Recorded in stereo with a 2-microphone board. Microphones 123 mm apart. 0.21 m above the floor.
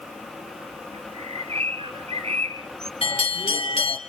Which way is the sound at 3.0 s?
55° left (ahead or behind).